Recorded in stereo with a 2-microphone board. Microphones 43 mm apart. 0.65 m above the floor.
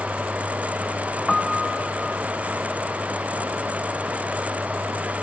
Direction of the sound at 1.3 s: 5° left (ahead or behind).